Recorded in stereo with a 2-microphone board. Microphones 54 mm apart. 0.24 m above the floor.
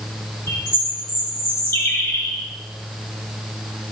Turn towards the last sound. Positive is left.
turn(degrees=45)  # may be behind; listen again after turning